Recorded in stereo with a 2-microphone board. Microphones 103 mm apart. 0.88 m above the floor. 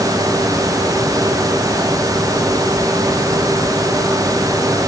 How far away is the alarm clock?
No alarm clock in this recording.